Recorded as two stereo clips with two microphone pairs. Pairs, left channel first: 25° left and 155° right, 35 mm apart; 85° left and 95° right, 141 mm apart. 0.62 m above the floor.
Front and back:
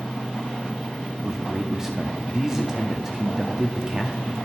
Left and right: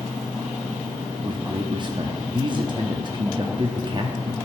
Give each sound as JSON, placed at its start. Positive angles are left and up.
{"t": 1.2, "sound": "a man speaking", "azimuth_deg": -90, "distance_m": 0.7}